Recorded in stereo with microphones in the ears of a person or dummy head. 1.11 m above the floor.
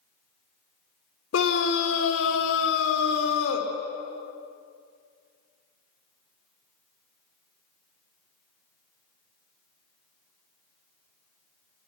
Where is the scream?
85° left, 3 m.